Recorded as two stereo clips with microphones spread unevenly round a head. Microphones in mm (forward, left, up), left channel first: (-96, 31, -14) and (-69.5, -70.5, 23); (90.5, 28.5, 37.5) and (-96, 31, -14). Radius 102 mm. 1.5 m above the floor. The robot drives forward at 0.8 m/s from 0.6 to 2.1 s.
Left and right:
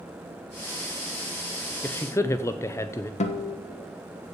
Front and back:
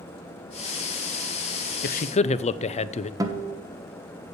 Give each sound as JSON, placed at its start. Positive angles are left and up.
{"t": 1.8, "sound": "a man speaking", "azimuth_deg": 40, "distance_m": 0.6}
{"t": 3.2, "sound": "a guitar", "azimuth_deg": 105, "distance_m": 1.2}